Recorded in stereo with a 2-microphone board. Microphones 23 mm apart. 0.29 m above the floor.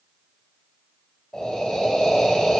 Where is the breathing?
30° left (ahead or behind), 1.9 m.